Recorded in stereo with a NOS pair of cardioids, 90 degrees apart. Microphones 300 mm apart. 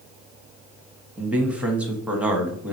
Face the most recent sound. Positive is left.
turn(degrees=-5)